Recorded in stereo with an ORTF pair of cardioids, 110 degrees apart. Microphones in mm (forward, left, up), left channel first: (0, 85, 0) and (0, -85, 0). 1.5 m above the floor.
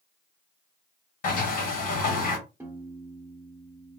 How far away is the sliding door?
About 1.5 m.